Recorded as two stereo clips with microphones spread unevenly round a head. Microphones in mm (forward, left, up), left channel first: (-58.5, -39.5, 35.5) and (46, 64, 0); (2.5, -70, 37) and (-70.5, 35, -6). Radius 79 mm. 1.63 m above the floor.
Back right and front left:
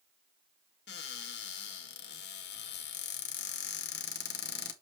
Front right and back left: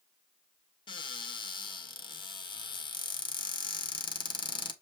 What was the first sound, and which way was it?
A cupboard door, 110° right.